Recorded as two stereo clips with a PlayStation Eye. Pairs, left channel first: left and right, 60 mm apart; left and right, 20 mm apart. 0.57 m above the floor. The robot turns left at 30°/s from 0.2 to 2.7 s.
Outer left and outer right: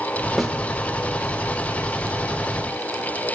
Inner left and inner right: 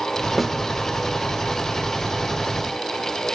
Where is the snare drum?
Centre (ahead or behind), 0.6 m; by 0.6 s 5° right (ahead or behind), 0.6 m.